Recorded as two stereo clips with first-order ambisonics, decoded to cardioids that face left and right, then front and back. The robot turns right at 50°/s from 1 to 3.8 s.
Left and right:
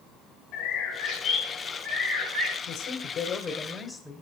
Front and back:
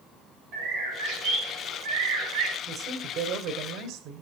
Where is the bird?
125° left, 4 m; by 2.6 s 155° right, 4 m.